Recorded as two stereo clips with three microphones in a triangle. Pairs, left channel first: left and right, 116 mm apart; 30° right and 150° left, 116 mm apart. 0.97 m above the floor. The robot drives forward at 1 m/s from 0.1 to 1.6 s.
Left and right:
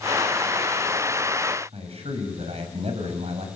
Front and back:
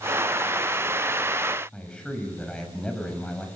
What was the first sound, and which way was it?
A man speaking, 115° right.